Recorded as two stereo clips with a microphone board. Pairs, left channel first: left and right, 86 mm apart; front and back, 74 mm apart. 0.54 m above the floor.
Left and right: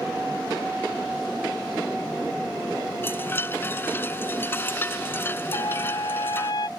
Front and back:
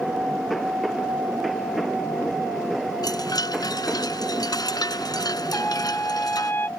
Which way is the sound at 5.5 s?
60° left.